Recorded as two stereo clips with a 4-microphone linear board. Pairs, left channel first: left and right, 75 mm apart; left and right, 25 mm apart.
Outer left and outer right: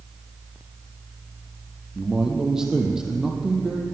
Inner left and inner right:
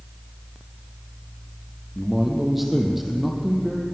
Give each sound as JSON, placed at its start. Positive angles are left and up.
{"t": 1.9, "sound": "a man speaking", "side_deg": -5, "distance_m": 4.0}